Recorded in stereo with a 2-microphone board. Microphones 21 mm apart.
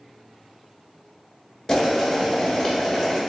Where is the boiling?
25° left (ahead or behind), 1.1 m.